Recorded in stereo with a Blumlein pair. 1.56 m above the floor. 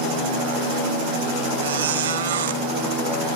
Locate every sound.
1.6 s a squeak: 60° right, 1.8 m